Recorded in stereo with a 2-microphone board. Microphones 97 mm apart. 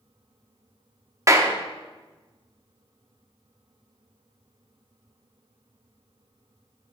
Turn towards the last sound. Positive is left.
turn(degrees=-35)  # may be behind; listen again after turning